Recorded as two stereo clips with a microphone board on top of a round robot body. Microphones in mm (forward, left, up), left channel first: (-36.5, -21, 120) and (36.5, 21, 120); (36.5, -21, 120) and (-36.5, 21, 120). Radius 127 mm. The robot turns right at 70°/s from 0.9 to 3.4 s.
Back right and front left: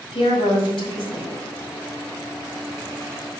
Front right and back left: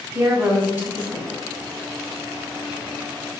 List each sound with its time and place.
0.1 s a woman speaking: 140° right, 4 m; by 1.4 s 105° right, 4 m